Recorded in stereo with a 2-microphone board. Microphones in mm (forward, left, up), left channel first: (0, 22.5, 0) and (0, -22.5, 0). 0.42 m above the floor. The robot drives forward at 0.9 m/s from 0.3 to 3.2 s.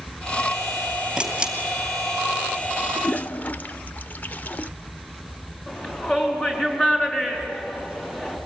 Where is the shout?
30° left (ahead or behind), 5 m.